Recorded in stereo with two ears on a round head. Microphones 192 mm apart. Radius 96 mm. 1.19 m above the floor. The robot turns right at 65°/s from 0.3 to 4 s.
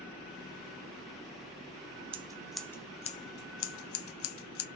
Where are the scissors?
25° right (ahead or behind), 0.9 m; by 4.7 s 70° left (ahead or behind), 0.9 m.